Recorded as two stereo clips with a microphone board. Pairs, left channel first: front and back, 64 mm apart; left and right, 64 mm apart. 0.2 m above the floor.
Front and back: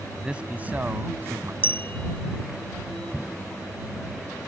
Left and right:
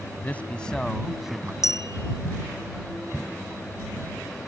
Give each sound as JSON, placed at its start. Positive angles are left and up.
{"t": 0.1, "sound": "a man speaking", "azimuth_deg": 115}
{"t": 1.6, "sound": "a clink", "azimuth_deg": 55}